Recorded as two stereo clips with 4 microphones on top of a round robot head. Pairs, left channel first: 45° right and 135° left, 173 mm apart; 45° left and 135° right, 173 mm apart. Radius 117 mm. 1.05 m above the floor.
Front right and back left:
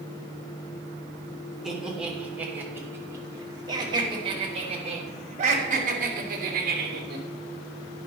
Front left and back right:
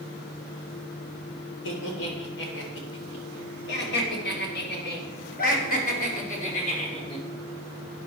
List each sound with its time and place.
1.6 s laughter: 50° left, 3.5 m; by 7.2 s 100° left, 3.5 m